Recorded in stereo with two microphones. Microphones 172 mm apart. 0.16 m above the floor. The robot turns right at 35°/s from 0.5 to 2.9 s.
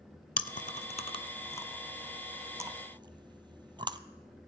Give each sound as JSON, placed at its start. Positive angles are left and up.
{"t": 0.4, "sound": "chewing", "side_deg": 55, "distance_m": 0.6}